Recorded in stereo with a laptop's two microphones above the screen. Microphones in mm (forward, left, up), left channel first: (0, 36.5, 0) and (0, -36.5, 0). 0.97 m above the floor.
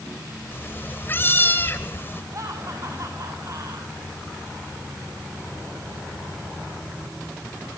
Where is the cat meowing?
30° left (ahead or behind), 1.6 m.